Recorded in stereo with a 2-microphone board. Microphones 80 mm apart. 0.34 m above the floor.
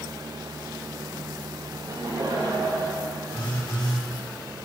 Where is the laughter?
55° right (ahead or behind), 6 m; by 3.1 s 70° right (ahead or behind), 7.5 m.